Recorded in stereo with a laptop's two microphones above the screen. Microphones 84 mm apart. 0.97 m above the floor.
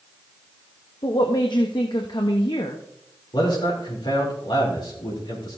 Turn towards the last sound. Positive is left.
turn(degrees=70)  # may be behind; listen again after turning